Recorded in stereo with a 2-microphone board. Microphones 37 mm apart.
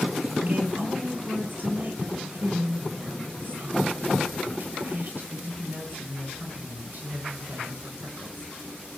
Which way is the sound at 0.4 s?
55° right (ahead or behind).